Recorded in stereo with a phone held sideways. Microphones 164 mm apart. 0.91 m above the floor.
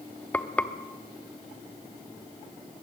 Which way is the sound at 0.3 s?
10° left (ahead or behind).